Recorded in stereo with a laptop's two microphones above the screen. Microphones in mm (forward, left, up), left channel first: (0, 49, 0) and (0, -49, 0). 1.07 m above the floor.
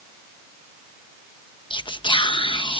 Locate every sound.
1.7 s whispering: 55° left (ahead or behind)